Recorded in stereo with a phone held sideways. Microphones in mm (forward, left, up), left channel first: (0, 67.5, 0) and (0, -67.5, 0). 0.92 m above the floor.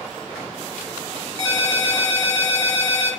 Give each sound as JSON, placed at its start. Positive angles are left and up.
{"t": 1.4, "sound": "a ringtone", "side_deg": 20, "distance_m": 1.7}